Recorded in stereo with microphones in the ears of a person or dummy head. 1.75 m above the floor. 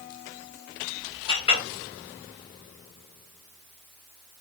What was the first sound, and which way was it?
A clink, 35° left (ahead or behind).